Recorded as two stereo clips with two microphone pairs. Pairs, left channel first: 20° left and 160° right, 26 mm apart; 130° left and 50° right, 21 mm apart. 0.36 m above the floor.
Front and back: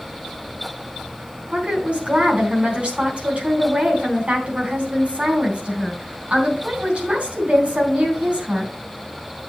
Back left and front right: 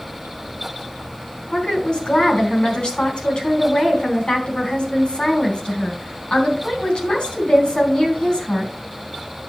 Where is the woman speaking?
165° left, 3.5 m.